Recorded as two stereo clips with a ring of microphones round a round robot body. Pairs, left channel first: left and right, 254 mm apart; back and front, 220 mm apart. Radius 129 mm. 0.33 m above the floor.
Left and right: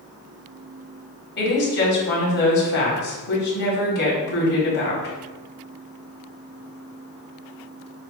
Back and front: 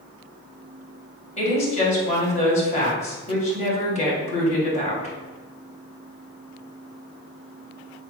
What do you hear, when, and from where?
1.4 s a woman speaking: 130° left, 2.0 m